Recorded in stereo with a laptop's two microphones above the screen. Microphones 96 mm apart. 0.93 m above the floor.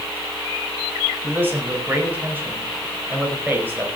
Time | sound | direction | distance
1.2 | a man speaking | 20° right (ahead or behind) | 4.5 m